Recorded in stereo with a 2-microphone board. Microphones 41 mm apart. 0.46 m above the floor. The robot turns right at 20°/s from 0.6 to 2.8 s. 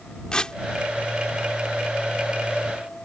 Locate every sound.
0.3 s tearing paper: 20° left (ahead or behind)